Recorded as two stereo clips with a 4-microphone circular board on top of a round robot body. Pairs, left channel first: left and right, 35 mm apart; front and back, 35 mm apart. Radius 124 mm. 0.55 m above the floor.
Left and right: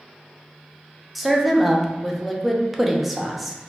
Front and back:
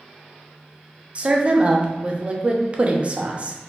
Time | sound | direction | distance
1.1 | a woman speaking | 175° right | 0.8 m